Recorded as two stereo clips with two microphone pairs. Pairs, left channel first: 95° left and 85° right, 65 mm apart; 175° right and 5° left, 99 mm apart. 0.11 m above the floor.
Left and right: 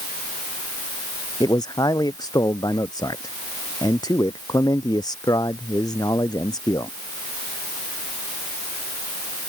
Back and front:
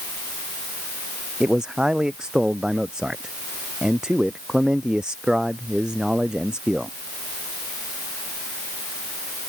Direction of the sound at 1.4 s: 90° left.